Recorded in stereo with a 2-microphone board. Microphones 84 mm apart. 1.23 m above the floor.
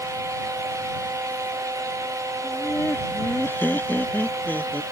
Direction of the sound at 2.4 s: 25° left (ahead or behind).